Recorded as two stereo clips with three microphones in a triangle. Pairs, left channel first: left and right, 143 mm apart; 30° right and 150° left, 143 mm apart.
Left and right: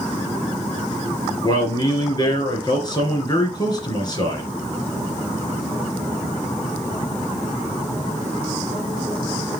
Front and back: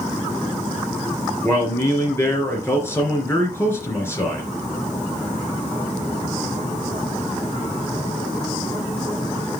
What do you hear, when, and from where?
1.4 s a man speaking: 40° left, 2.5 m